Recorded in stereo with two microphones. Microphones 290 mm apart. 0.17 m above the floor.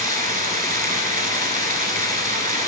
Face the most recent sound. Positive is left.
turn(degrees=-30)  # may be behind; listen again after turning